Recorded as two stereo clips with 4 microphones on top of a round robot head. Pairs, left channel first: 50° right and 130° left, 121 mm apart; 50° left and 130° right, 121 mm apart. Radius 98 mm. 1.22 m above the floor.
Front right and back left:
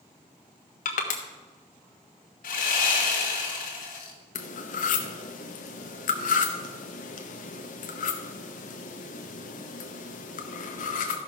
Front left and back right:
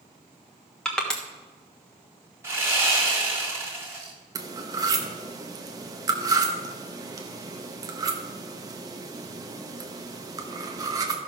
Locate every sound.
0.8 s crushing: 35° right, 1.3 m
2.4 s sawing: 60° right, 2 m
4.3 s cutlery clinking: 70° right, 0.9 m